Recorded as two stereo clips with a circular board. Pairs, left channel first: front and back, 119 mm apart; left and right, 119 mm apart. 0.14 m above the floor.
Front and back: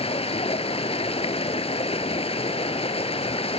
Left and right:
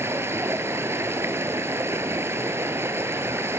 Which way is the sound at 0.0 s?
25° right.